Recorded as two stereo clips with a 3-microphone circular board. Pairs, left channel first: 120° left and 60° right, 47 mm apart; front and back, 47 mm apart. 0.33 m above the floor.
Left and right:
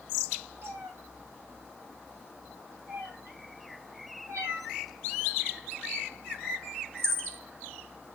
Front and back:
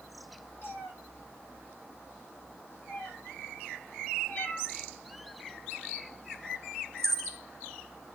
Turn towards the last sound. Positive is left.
turn(degrees=-85)